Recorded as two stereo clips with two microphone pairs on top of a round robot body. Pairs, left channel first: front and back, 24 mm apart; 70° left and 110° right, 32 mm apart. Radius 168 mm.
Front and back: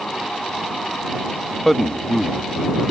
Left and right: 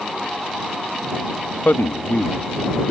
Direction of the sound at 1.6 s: 80° left.